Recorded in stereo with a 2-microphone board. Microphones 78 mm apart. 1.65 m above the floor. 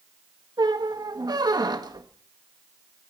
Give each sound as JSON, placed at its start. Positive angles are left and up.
{"t": 0.6, "sound": "a squeak", "side_deg": -60, "distance_m": 1.6}